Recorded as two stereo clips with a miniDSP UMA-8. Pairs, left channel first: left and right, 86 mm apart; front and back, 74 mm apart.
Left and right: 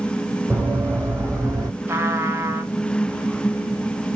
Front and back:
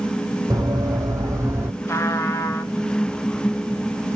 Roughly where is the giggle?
No giggle in this recording.